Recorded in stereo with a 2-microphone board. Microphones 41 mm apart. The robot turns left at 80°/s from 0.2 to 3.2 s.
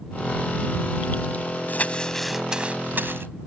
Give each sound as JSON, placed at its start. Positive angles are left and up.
{"t": 1.7, "sound": "crumpling", "azimuth_deg": 50}